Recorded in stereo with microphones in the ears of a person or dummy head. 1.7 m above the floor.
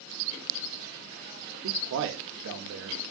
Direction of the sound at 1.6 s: 65° right (ahead or behind).